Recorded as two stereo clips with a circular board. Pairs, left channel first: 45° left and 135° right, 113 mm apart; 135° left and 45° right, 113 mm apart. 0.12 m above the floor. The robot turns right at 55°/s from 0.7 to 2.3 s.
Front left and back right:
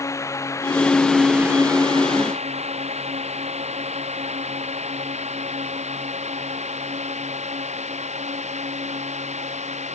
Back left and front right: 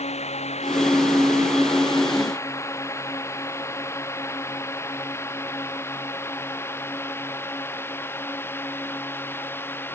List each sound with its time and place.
0.0 s a drone: 110° left; by 9.9 s 155° right